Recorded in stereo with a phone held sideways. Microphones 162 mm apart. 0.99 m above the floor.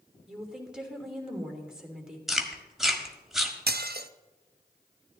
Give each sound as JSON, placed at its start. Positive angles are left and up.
{"t": 0.3, "sound": "a woman speaking", "side_deg": -5, "distance_m": 3.0}
{"t": 2.3, "sound": "chewing", "side_deg": 0, "distance_m": 1.5}
{"t": 3.7, "sound": "dishes clattering", "side_deg": -75, "distance_m": 0.7}